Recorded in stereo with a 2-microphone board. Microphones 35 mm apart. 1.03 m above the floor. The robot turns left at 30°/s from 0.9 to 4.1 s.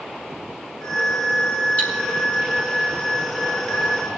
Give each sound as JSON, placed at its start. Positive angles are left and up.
{"t": 1.8, "sound": "cutlery clinking", "side_deg": 40, "distance_m": 6.5}